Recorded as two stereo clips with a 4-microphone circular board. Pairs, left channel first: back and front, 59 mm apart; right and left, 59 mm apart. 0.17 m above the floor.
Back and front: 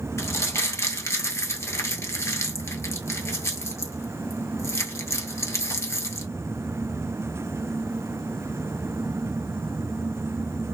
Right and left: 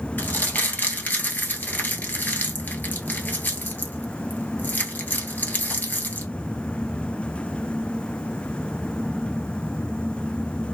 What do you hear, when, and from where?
0.2 s crumpling: 145° right, 0.9 m